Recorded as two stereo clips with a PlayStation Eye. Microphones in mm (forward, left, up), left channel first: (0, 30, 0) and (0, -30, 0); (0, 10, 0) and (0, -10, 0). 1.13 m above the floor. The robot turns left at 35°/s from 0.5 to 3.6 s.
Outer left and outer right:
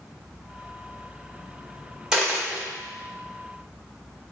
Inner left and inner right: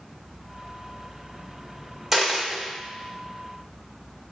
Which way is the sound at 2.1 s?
10° right (ahead or behind).